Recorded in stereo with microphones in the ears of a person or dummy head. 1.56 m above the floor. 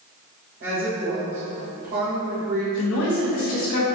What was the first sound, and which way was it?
A woman speaking, 60° right (ahead or behind).